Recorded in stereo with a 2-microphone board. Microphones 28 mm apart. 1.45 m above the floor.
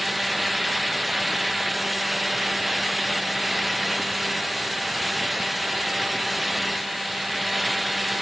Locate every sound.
Only background noise.